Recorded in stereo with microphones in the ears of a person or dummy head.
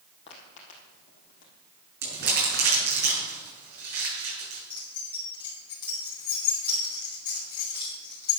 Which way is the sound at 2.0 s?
60° right (ahead or behind).